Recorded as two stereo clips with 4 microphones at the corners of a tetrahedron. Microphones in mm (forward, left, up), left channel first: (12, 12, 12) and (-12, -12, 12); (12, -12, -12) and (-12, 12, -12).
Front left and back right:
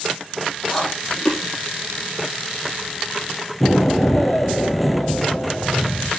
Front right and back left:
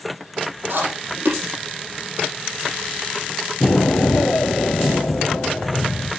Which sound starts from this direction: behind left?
Chewing, at 0.7 s.